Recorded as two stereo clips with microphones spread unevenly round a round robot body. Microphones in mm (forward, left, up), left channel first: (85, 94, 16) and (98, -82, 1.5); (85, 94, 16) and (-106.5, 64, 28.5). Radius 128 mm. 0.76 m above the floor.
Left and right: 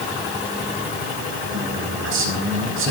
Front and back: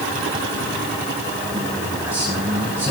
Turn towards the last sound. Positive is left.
turn(degrees=-90)